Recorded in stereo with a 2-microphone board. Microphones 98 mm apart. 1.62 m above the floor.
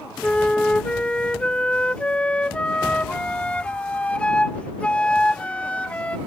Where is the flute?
10° left (ahead or behind).